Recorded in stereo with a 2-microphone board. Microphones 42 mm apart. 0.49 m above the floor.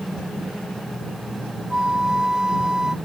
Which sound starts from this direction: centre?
A flute, at 1.7 s.